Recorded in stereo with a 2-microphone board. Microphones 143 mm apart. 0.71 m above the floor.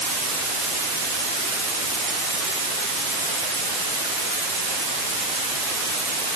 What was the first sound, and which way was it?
Only background noise.